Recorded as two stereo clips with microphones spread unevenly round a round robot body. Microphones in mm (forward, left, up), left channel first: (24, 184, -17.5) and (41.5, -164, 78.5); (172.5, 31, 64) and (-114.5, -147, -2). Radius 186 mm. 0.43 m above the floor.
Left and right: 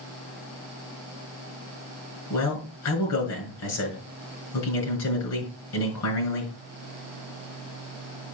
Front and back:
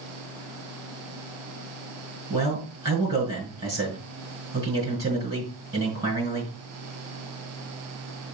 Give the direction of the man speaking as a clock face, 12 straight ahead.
8 o'clock.